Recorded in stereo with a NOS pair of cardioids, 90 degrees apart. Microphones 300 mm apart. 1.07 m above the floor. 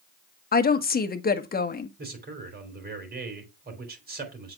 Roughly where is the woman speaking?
Ahead left.